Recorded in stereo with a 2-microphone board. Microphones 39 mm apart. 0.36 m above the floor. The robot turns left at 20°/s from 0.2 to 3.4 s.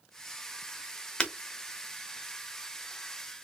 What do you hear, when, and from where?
1.2 s breaking glass: 25° left (ahead or behind), 1.1 m; by 1.3 s 20° left (ahead or behind), 1.1 m